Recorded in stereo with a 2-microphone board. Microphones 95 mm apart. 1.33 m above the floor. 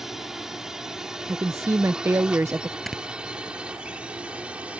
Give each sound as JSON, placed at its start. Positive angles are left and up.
{"t": 0.0, "sound": "a drone", "side_deg": -5}
{"t": 1.3, "sound": "a woman speaking", "side_deg": -30}
{"t": 2.9, "sound": "snoring", "side_deg": 0}